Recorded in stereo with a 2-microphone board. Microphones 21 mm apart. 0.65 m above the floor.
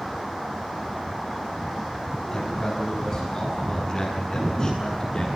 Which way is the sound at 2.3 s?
30° left (ahead or behind).